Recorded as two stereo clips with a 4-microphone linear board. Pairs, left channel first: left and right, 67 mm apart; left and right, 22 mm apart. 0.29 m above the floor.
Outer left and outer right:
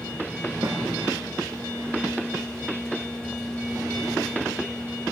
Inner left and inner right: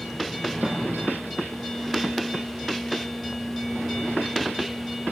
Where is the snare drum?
50° right (ahead or behind), 4 m.